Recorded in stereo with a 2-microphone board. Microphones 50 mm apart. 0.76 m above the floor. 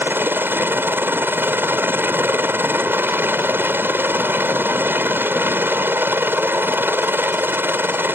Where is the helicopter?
45° right (ahead or behind).